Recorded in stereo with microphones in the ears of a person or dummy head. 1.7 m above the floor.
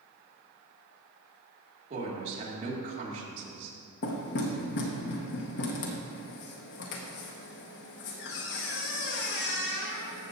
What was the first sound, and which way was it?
A woman speaking, 35° right (ahead or behind).